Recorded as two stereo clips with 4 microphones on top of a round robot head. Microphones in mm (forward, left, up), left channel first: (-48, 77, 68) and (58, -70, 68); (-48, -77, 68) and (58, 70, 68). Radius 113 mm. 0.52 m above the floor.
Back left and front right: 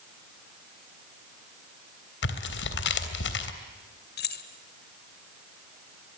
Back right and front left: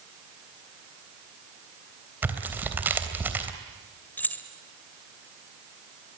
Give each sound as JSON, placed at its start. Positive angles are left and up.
{"t": 2.2, "sound": "tearing paper", "azimuth_deg": 135, "distance_m": 3.0}
{"t": 4.2, "sound": "keys jangling", "azimuth_deg": 155, "distance_m": 2.0}